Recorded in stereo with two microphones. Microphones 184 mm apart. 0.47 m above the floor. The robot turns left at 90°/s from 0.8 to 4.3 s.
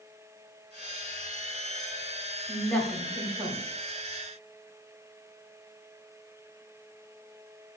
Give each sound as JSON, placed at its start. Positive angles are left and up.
{"t": 2.5, "sound": "a woman speaking", "azimuth_deg": 30, "distance_m": 1.1}